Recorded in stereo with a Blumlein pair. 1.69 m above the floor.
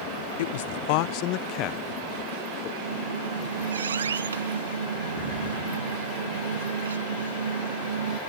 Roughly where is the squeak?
Right.